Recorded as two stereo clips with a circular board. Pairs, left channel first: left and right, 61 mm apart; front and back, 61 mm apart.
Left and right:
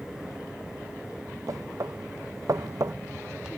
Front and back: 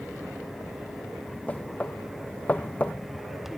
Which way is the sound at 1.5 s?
65° right.